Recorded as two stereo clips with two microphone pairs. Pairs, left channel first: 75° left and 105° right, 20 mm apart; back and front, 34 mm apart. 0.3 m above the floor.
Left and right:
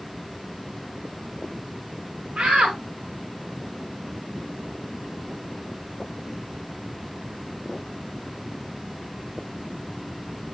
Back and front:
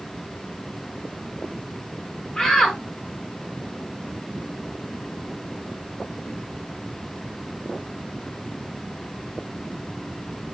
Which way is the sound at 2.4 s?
115° right.